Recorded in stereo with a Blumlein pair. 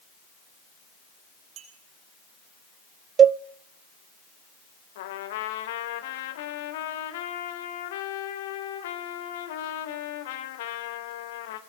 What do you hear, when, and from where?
1.6 s a clink: 35° right, 8 m
3.2 s a cowbell: 25° right, 0.5 m
5.0 s a trumpet: 55° left, 3 m